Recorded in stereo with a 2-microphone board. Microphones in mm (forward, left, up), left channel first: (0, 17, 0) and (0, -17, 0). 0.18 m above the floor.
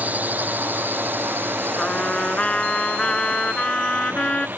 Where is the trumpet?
30° left (ahead or behind).